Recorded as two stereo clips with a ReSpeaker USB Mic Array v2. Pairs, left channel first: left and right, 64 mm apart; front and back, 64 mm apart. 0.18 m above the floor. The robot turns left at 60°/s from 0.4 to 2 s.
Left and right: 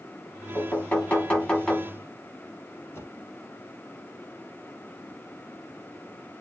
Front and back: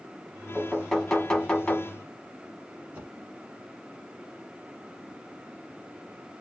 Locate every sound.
0.6 s knocking: 105° left, 1.1 m; by 2.0 s 20° left, 1.1 m
2.9 s a whoosh: 125° left, 1.1 m